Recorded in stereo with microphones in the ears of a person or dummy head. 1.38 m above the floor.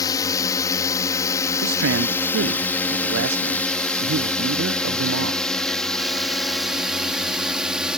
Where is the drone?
20° left (ahead or behind); by 8.0 s centre (ahead or behind).